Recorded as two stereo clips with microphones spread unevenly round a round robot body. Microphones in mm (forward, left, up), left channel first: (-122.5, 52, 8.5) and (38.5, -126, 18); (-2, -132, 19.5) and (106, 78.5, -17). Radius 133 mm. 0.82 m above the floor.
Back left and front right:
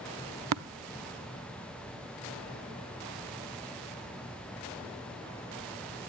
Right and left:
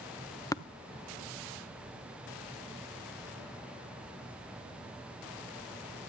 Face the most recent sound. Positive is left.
turn(degrees=-40)